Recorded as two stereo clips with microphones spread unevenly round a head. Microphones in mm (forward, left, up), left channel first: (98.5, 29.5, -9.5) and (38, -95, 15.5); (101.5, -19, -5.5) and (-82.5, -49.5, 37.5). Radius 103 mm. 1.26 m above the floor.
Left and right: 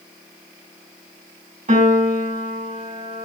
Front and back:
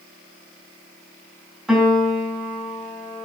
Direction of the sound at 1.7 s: 85° right.